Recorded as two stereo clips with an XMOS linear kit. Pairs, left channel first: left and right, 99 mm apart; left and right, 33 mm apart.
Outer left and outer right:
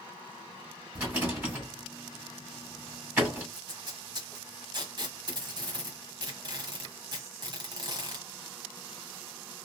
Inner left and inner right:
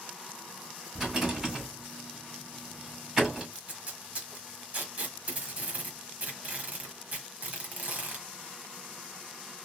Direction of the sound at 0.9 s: 15° right (ahead or behind).